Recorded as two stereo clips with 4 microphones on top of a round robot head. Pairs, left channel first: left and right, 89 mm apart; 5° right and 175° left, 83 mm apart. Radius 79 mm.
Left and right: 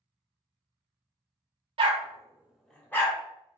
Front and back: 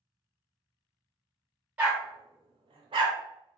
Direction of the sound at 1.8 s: 110° right.